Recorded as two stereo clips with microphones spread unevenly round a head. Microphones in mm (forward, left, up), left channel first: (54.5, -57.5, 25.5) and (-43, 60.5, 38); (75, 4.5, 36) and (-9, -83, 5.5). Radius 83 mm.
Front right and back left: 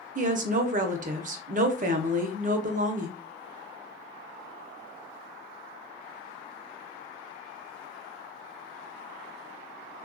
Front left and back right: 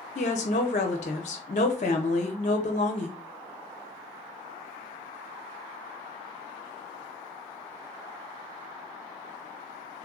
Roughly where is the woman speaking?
Left.